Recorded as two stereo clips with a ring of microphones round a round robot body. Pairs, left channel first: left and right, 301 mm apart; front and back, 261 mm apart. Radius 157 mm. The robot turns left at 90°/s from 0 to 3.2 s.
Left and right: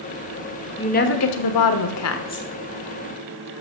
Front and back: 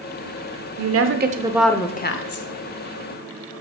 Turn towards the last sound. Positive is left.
turn(degrees=-50)